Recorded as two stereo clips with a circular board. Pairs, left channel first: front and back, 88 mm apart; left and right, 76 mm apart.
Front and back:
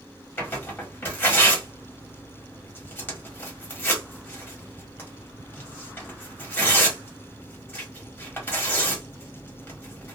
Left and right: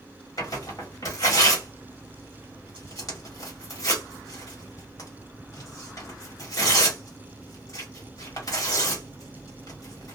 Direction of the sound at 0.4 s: 65° left.